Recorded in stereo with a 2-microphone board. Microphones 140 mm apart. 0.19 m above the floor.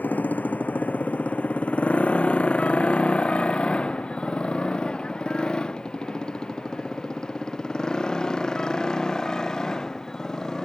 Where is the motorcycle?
10° left (ahead or behind); by 10.7 s 5° left (ahead or behind).